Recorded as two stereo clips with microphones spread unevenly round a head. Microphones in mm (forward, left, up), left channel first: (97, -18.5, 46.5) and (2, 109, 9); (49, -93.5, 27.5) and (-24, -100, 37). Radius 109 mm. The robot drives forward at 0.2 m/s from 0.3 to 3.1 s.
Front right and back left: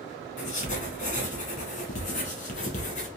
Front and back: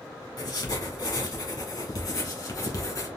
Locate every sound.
0.4 s writing: 30° right, 1.5 m; by 3.1 s 40° right, 1.1 m